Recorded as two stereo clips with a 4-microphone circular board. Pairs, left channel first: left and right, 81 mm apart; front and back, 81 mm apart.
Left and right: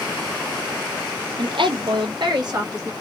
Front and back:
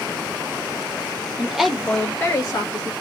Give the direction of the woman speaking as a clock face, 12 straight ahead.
4 o'clock.